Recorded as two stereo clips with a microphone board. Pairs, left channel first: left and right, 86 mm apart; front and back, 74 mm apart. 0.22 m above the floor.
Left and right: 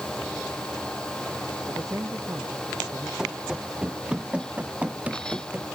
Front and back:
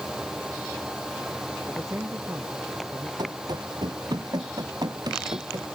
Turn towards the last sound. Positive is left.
turn(degrees=-160)